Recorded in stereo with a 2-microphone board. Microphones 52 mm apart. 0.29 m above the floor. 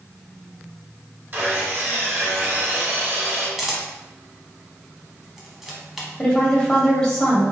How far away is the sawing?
About 1.2 m.